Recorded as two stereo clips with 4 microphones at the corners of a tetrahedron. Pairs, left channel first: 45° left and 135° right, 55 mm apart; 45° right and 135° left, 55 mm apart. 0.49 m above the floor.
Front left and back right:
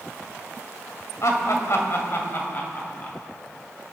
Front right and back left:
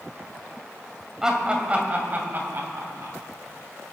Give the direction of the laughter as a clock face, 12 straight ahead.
10 o'clock.